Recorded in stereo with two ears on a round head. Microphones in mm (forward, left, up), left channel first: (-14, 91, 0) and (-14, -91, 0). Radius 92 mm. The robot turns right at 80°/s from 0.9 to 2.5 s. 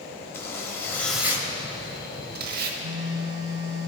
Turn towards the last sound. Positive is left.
turn(degrees=-15)  # may be behind; listen again after turning